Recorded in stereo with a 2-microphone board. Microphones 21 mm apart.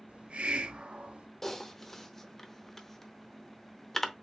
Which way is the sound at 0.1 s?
75° right (ahead or behind).